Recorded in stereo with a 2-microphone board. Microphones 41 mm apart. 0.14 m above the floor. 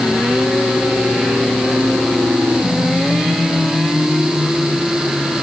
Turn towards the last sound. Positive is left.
No sound to turn to.